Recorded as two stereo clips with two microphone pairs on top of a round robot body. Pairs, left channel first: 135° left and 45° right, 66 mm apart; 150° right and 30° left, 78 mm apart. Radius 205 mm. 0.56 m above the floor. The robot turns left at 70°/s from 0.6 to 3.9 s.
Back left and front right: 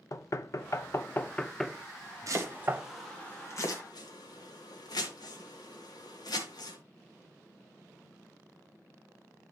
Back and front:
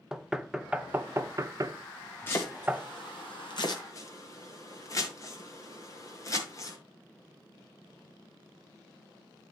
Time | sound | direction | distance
0.1 | knocking | 110° left | 0.8 m
2.3 | chopping | 85° right | 1.2 m